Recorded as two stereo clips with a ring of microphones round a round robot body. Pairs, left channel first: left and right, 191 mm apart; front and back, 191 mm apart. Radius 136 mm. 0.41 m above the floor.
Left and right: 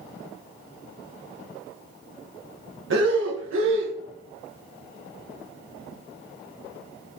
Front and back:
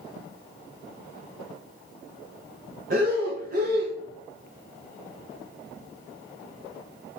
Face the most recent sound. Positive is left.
turn(degrees=-125)